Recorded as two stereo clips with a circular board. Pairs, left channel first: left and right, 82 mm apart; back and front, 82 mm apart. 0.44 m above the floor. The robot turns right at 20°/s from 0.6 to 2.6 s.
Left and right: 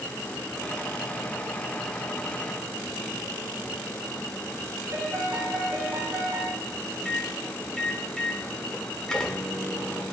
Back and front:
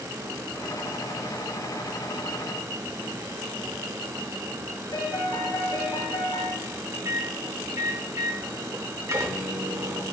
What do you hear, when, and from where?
4.9 s a piano: 150° right, 2.5 m
7.0 s a microwave: 10° left, 1.0 m